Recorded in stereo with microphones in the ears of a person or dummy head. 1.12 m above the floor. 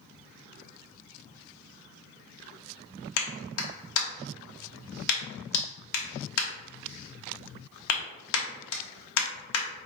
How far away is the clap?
About 1.2 m.